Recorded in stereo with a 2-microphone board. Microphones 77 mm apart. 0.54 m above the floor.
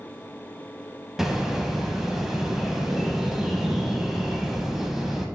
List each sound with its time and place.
1.2 s a bird: 5° right (ahead or behind), 0.5 m